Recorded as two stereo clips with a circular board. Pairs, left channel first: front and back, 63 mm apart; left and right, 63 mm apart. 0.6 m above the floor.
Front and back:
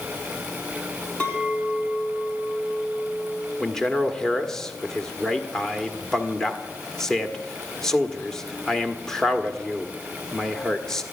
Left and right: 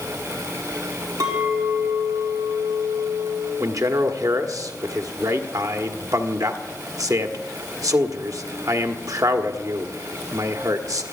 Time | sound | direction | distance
1.2 | a clink | 70° right | 5 m
3.6 | a man speaking | 80° right | 1.4 m